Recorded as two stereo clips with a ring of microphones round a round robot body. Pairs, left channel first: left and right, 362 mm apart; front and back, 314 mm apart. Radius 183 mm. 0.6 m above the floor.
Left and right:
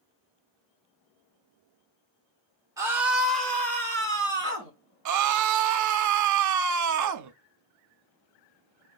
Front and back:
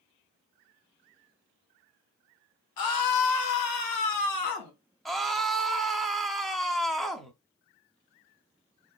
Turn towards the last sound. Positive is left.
turn(degrees=-90)